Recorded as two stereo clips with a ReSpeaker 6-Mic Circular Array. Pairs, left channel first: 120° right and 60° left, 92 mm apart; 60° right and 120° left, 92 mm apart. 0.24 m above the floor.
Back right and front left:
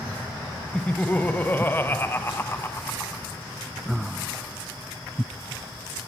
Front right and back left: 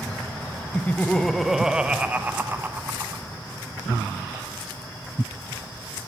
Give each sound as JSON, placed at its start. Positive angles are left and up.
{"t": 0.7, "sound": "laughter", "azimuth_deg": -70, "distance_m": 1.0}